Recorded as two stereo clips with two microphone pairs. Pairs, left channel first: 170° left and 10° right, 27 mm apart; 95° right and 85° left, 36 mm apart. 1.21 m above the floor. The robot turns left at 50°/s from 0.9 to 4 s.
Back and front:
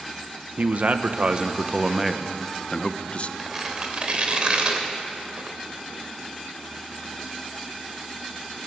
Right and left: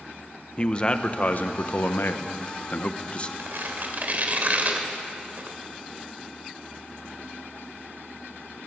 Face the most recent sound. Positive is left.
turn(degrees=40)